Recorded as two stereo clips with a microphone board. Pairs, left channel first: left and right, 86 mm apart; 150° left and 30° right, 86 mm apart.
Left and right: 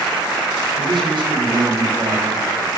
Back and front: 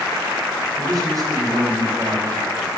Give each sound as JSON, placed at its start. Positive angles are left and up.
{"t": 0.8, "sound": "a man speaking", "azimuth_deg": -75, "distance_m": 4.0}